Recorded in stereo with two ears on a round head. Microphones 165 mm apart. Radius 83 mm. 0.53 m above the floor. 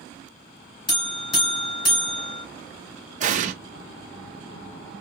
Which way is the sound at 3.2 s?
45° right (ahead or behind).